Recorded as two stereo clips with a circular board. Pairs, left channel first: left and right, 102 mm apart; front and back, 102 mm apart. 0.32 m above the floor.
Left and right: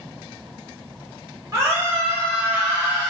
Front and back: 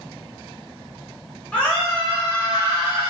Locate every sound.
1.5 s a scream: 65° right, 1.2 m; by 3.1 s 145° right, 1.4 m